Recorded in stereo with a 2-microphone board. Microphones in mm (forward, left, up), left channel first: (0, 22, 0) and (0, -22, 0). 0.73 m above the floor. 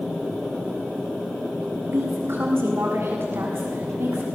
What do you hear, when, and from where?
1.9 s a woman speaking: 65° right (ahead or behind), 6.5 m